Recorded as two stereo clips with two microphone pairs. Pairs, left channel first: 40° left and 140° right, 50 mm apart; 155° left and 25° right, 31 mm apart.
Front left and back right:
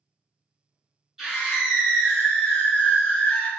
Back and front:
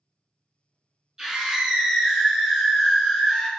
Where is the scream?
75° right, 1.6 m; by 3.5 s 85° left, 1.7 m.